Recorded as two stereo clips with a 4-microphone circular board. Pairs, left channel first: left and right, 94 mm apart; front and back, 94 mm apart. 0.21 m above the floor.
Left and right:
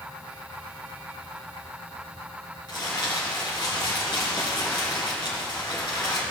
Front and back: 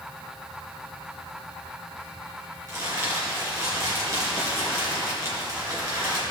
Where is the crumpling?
125° left, 3.5 m.